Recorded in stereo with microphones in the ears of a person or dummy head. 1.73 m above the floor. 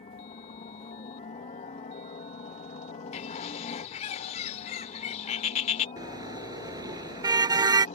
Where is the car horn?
15° right (ahead or behind).